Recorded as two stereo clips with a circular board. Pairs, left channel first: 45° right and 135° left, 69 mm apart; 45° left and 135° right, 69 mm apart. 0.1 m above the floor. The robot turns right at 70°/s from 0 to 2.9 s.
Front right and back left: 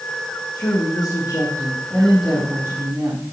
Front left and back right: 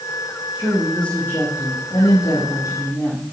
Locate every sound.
0.6 s a woman speaking: 65° right, 4.5 m; by 3.2 s 100° left, 4.5 m